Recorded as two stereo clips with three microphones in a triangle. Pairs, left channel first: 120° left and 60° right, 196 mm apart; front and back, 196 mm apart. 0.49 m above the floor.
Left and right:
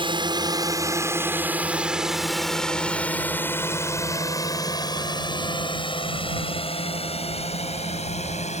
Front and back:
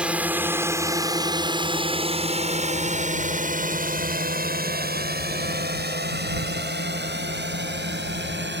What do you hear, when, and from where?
0.0 s a drone: 100° right; by 8.6 s 170° left